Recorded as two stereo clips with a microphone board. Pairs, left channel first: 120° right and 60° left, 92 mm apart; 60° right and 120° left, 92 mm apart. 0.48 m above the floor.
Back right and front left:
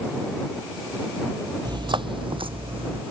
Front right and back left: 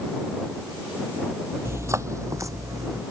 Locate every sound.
1.6 s footsteps: 65° left